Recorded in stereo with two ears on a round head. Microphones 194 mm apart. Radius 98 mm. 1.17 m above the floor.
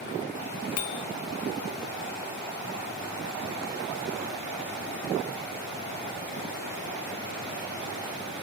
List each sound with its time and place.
0.8 s a bicycle bell: 85° left, 2 m